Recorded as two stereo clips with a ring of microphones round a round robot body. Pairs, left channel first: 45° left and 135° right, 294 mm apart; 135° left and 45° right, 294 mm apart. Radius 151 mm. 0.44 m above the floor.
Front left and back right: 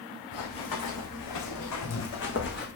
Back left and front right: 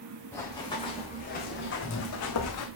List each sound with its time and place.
0.3 s running footsteps: 50° left, 2.5 m; by 2.7 s 105° left, 2 m